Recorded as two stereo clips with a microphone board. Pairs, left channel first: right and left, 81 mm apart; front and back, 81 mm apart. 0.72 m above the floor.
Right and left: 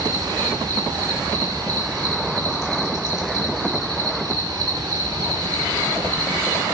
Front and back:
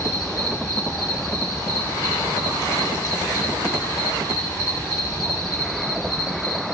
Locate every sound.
0.0 s an insect: 50° left, 5.5 m